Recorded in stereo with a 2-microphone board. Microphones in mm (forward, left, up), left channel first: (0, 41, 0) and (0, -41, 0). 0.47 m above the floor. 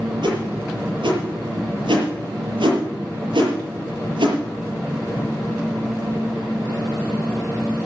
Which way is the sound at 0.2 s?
80° right.